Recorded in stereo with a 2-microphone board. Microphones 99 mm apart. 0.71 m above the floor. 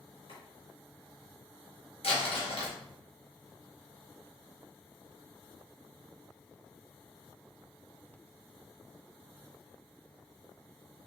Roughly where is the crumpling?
Left.